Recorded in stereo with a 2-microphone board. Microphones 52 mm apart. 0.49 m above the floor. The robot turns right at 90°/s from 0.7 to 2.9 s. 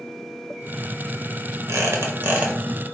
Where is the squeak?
100° right, 0.9 m; by 2.5 s 25° right, 0.9 m.